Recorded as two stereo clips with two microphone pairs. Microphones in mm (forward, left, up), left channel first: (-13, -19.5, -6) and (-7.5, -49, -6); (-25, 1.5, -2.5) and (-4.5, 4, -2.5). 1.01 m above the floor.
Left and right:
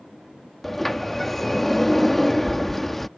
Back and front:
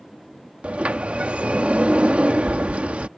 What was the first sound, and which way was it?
A sliding door, 15° left.